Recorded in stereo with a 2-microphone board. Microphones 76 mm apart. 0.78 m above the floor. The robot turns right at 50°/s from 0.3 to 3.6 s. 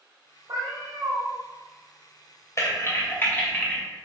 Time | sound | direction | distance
0.5 | a cat meowing | 80° right | 0.9 m
2.6 | typing on a keyboard | 40° left (ahead or behind) | 0.6 m